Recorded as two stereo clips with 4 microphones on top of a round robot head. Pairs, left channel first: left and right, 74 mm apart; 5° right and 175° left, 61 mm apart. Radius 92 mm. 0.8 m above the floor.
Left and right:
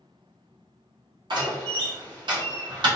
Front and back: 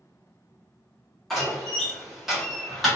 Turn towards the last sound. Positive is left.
turn(degrees=-95)